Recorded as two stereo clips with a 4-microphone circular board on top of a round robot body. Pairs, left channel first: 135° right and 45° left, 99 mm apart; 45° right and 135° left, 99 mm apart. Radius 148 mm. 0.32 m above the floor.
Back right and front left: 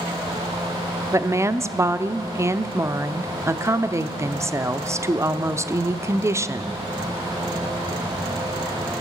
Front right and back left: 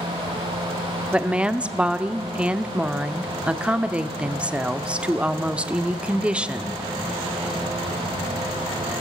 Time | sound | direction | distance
1.1 | a woman speaking | 65° left | 0.9 m